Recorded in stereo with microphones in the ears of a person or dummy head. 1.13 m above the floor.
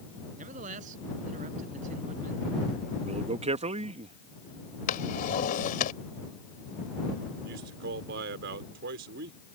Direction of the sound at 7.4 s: 65° right (ahead or behind).